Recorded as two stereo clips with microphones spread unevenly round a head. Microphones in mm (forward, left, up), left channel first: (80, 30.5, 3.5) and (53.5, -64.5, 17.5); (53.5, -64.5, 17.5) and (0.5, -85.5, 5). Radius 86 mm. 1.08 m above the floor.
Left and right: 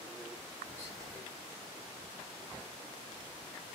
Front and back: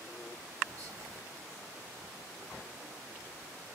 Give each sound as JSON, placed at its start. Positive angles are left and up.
{"t": 0.7, "sound": "whispering", "azimuth_deg": -160, "distance_m": 1.4}